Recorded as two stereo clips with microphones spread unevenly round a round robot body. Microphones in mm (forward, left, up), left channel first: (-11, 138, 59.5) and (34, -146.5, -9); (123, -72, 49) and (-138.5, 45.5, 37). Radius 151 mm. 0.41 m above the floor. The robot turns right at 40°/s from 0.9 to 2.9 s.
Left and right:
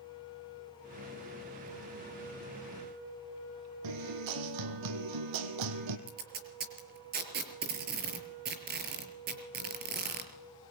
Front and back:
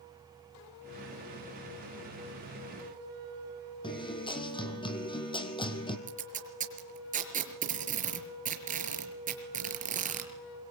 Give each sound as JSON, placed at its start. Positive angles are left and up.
{"t": 3.8, "sound": "a guitar", "azimuth_deg": -100, "distance_m": 3.0}
{"t": 6.1, "sound": "tape being pulled", "azimuth_deg": -140, "distance_m": 5.5}